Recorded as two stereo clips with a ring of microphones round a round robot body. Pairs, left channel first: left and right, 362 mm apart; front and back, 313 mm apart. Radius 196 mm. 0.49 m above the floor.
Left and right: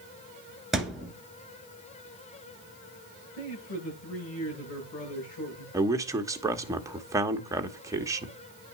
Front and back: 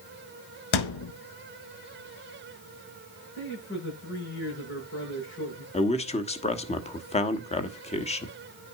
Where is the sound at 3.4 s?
55° left, 8 m.